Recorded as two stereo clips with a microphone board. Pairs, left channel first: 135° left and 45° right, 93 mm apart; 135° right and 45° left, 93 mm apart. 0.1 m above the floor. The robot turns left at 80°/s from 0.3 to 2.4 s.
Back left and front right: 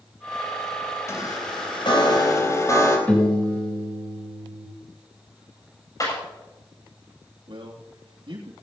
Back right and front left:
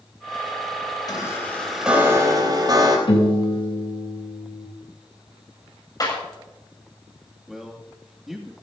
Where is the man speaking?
40° right, 3 m.